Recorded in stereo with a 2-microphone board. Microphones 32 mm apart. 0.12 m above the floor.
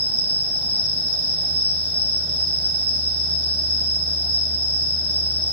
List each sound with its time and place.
0.0 s an insect: 75° left (ahead or behind), 6.5 m